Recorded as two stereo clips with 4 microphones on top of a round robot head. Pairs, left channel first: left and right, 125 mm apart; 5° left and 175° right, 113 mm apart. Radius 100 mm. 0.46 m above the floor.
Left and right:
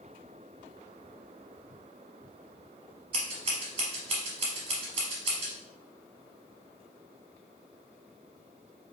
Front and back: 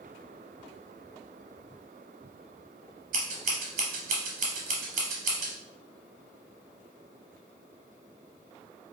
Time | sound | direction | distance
3.1 | scissors | 150° right | 0.6 m